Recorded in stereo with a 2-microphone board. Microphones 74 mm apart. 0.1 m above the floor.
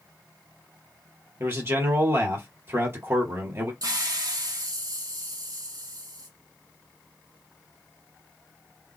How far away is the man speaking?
About 2 m.